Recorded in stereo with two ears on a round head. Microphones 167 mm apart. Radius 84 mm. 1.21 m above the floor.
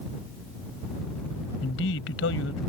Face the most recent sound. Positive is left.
turn(degrees=75)  # may be behind; listen again after turning